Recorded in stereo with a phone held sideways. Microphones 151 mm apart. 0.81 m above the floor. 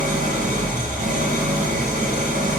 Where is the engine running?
55° right (ahead or behind), 1.6 m.